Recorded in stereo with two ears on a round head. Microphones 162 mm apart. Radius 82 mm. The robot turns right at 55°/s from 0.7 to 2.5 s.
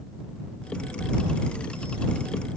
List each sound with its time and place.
Only background noise.